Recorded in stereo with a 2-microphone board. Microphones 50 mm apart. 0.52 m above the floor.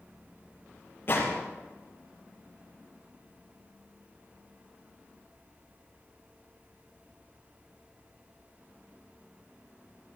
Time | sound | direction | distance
1.1 | a gunshot | 45° left (ahead or behind) | 6.5 m